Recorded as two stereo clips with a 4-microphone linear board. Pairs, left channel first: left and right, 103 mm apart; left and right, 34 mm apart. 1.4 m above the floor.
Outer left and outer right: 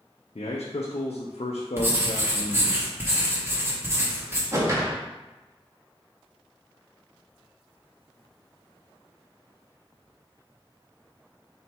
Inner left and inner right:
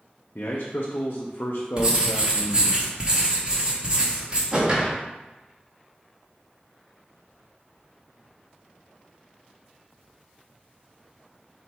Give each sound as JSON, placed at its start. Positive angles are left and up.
{"t": 0.3, "sound": "a man speaking", "side_deg": 80, "distance_m": 0.5}
{"t": 1.8, "sound": "writing", "side_deg": -25, "distance_m": 0.9}
{"t": 4.5, "sound": "a whoosh", "side_deg": -30, "distance_m": 0.8}